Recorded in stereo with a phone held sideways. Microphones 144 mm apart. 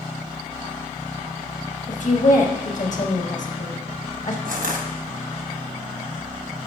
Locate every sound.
1.9 s a woman speaking: 60° left (ahead or behind), 1.4 m
4.5 s crushing: 75° right (ahead or behind), 1.1 m